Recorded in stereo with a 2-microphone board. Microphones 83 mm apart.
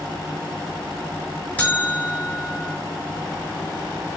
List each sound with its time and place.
1.6 s a buzzer: 15° left (ahead or behind), 5.5 m